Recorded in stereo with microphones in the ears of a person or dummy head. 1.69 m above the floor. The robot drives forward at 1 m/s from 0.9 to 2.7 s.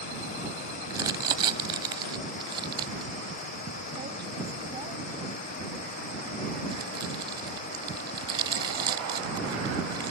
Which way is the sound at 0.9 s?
20° right (ahead or behind).